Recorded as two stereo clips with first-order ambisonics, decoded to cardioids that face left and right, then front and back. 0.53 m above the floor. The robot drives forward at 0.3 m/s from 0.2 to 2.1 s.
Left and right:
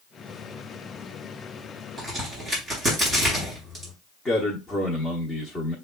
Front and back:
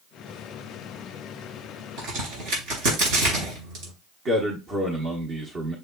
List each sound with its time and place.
2.0 s a crack: 165° right, 4 m
4.2 s a man speaking: 160° left, 0.9 m